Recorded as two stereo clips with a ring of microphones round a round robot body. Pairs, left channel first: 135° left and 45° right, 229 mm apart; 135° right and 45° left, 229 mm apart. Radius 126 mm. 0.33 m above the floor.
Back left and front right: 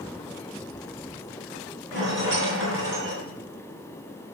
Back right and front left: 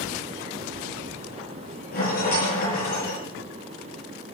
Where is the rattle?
85° right, 8 m.